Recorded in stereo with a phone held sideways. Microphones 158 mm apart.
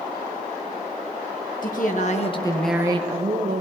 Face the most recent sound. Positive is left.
turn(degrees=-65)  # may be behind; listen again after turning